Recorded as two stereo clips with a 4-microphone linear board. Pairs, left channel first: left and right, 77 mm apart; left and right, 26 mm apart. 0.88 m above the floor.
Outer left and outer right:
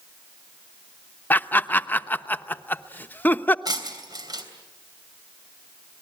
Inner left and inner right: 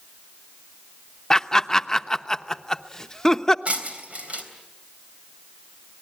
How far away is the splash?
No splash in this recording.